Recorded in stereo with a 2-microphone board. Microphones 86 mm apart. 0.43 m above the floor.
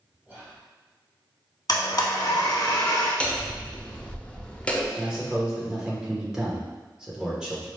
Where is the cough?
No cough in this recording.